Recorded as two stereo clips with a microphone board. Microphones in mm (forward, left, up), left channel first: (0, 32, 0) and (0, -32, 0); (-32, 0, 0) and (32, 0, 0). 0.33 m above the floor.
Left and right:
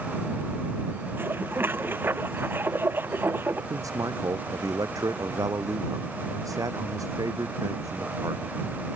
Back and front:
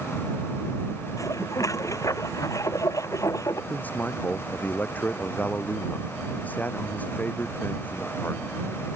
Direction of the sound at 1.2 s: 145° right.